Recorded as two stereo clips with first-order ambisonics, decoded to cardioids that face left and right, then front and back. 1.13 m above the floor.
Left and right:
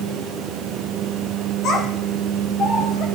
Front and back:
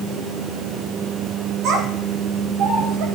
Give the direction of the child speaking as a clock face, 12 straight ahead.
7 o'clock.